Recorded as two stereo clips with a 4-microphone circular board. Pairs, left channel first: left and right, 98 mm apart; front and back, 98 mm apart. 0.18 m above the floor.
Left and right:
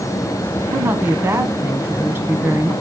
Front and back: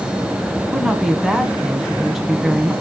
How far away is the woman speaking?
About 1.2 m.